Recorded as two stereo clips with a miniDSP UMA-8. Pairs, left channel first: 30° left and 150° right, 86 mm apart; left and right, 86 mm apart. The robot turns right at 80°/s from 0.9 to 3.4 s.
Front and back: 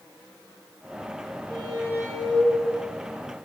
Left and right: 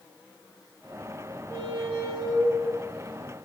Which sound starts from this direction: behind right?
A squeak, at 1.5 s.